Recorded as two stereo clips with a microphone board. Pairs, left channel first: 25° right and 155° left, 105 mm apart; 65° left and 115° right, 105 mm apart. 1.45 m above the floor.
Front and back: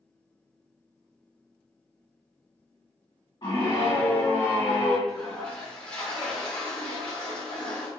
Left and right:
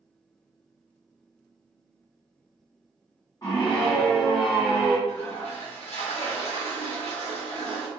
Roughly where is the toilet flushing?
Ahead left.